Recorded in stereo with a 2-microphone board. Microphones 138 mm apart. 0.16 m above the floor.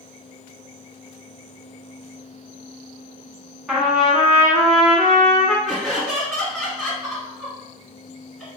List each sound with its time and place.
3.7 s a trumpet: centre (ahead or behind), 0.9 m
5.7 s laughter: centre (ahead or behind), 1.6 m